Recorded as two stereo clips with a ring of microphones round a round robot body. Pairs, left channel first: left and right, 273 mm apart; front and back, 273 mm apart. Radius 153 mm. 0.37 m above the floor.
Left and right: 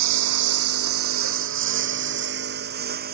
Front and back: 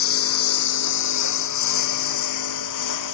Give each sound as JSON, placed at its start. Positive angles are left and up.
{"t": 0.0, "sound": "a lawn mower", "azimuth_deg": -50}